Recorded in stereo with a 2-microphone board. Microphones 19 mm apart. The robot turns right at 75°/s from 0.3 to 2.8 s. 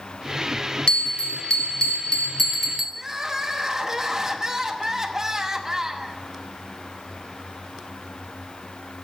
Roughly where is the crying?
Right.